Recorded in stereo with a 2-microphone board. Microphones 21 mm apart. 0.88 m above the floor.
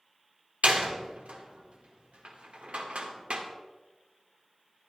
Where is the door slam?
75° right (ahead or behind), 1.8 m.